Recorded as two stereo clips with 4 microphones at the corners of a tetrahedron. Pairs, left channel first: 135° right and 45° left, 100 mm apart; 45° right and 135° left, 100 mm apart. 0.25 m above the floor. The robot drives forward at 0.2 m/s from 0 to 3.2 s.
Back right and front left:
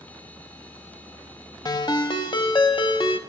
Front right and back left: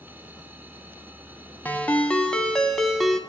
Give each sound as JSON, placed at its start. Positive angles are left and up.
{"t": 1.6, "sound": "a ringtone", "azimuth_deg": -110, "distance_m": 0.7}